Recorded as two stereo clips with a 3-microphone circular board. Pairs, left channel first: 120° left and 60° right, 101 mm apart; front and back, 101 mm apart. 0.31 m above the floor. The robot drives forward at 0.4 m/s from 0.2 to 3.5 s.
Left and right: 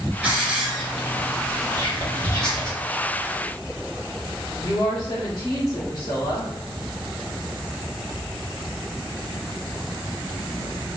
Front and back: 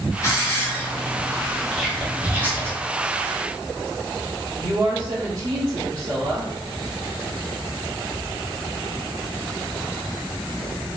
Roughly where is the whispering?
Left.